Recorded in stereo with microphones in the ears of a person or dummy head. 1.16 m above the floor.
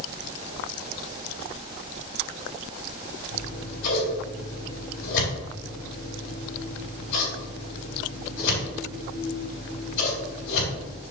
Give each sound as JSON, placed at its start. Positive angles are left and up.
{"t": 3.3, "sound": "scissors", "side_deg": 70, "distance_m": 3.0}